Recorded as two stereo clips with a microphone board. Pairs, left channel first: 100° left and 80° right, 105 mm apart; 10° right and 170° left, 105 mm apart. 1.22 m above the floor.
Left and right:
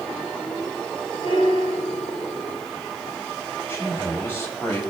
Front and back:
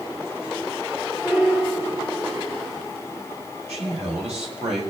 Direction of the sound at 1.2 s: 90° left.